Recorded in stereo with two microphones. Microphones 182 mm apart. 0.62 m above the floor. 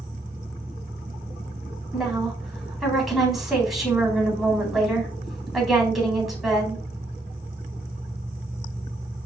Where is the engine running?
10° right (ahead or behind), 3 m.